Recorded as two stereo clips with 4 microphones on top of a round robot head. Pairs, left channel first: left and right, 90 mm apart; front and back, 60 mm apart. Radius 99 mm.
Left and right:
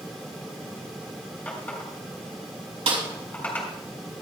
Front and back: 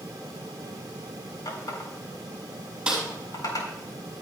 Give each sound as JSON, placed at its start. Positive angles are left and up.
{"t": 1.4, "sound": "a running tap", "azimuth_deg": 15, "distance_m": 4.0}
{"t": 2.9, "sound": "a snare drum", "azimuth_deg": -100, "distance_m": 4.5}